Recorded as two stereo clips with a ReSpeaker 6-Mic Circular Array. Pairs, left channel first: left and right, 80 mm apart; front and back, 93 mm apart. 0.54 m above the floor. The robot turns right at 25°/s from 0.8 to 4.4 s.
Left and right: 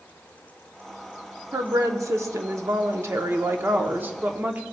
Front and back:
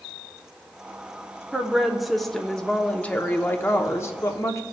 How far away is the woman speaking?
About 0.8 m.